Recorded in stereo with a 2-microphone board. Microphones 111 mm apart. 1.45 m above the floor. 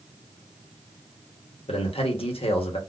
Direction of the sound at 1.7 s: 60° left (ahead or behind).